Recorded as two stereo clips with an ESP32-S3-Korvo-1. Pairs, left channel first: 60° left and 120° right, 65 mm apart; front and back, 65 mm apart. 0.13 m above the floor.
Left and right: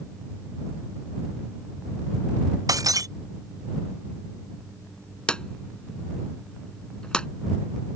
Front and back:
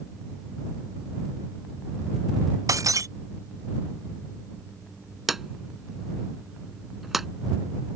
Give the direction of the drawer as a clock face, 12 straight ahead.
9 o'clock.